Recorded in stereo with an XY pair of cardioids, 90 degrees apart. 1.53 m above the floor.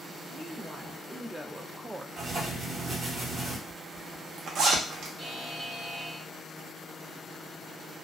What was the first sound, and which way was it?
A woman speaking, 5° right.